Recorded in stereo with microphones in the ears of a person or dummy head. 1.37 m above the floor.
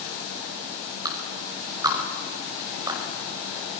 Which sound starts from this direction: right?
A clap, at 1.1 s.